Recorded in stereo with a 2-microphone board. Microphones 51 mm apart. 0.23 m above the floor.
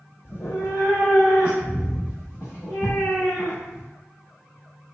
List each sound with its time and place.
0.2 s a cat meowing: 50° left (ahead or behind), 1.0 m; by 3.9 s 55° left (ahead or behind), 3 m